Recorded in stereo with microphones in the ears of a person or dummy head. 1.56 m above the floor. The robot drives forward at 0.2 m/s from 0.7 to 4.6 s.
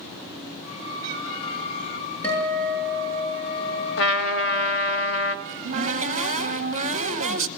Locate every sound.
2.2 s a guitar: 10° left (ahead or behind), 9.5 m; by 5.0 s 5° left (ahead or behind), 10 m
4.0 s a trumpet: 65° left (ahead or behind), 1.4 m
5.5 s a cupboard door: 40° right (ahead or behind), 1.0 m